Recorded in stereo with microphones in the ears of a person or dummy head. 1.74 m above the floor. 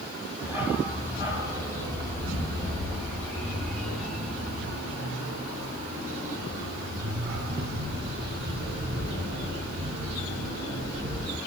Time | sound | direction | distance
0.4 | a dog barking | 10° right (ahead or behind) | 3 m